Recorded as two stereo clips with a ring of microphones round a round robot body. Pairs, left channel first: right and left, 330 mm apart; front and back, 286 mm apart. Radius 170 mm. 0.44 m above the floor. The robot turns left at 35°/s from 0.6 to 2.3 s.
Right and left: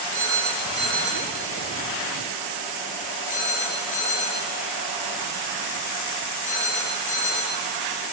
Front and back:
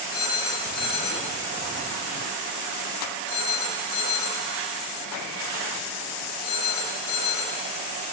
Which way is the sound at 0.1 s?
35° left.